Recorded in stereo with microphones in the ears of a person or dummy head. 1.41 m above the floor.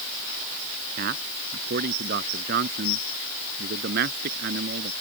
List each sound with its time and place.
1.0 s a man speaking: 55° right (ahead or behind); by 4.9 s 60° right (ahead or behind)